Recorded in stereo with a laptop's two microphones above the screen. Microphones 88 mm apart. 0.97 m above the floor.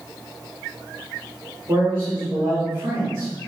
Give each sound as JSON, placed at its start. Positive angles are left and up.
{"t": 1.7, "sound": "a man speaking", "side_deg": -60, "distance_m": 1.7}